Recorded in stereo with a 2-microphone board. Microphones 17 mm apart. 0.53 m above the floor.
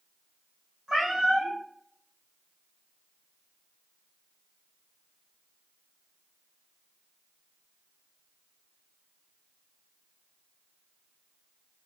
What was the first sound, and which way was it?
A cat meowing, 40° right (ahead or behind).